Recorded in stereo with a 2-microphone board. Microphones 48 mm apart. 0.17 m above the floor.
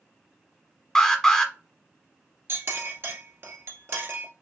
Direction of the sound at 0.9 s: 15° left (ahead or behind).